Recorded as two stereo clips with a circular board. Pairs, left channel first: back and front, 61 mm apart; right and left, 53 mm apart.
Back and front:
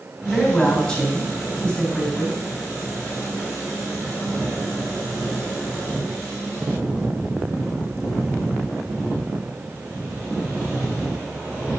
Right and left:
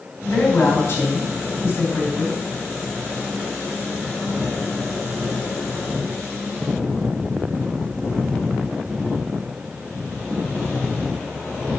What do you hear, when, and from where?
0.2 s a woman speaking: 110° right, 3 m